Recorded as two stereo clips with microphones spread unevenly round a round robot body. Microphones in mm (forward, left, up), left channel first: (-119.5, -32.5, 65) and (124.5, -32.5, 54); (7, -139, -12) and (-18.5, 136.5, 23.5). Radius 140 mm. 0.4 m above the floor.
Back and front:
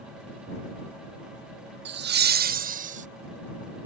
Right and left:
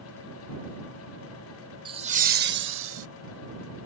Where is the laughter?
20° left; by 3.1 s 55° left.